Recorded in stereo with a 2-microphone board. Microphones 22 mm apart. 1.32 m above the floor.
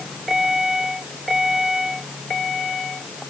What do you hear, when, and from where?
Only background noise.